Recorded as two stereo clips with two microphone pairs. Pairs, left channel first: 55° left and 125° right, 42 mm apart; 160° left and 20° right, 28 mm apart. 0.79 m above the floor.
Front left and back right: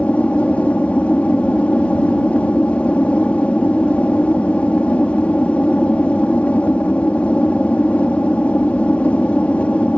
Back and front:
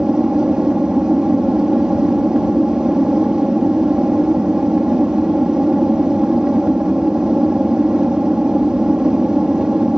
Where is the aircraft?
20° left.